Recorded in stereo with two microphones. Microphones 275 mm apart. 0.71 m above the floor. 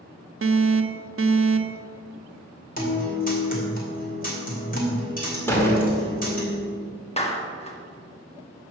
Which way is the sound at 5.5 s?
10° left (ahead or behind).